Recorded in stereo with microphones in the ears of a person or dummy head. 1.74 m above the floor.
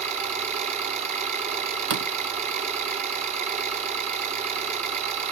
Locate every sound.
0.0 s an engine running: 40° right (ahead or behind), 3.5 m
1.9 s a door slam: 55° right (ahead or behind), 0.9 m